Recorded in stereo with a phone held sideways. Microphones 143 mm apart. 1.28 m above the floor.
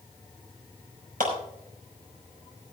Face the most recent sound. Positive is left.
turn(degrees=-90)